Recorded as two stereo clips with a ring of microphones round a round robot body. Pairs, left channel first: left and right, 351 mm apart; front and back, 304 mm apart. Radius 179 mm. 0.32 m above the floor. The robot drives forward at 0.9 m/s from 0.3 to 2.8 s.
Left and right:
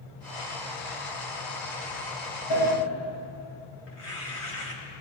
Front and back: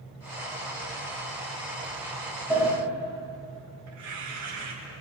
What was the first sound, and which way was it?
A sliding door, 100° left.